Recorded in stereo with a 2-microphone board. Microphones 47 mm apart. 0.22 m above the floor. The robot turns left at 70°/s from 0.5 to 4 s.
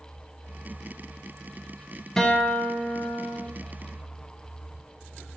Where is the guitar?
165° left, 0.5 m; by 3.5 s 75° left, 0.5 m.